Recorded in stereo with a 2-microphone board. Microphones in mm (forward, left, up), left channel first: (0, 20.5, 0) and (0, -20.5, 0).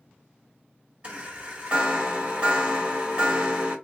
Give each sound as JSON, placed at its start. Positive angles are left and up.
{"t": 1.0, "sound": "a chime", "side_deg": -30, "distance_m": 1.7}